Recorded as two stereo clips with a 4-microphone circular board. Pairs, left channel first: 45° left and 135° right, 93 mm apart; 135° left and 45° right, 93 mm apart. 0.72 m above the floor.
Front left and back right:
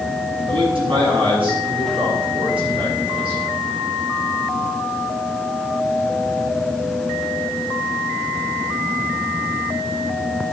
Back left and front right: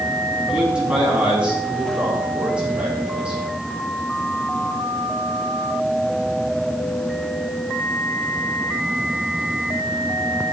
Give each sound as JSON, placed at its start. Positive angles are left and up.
{"t": 0.5, "sound": "a man speaking", "azimuth_deg": -125, "distance_m": 5.5}